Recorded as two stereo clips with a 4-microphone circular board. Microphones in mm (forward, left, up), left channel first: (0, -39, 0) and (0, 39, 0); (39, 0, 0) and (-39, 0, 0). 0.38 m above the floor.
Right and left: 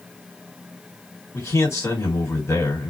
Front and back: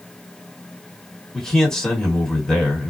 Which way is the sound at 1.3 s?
80° right.